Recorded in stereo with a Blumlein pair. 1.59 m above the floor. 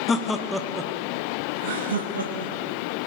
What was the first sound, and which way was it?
Laughter, 20° left.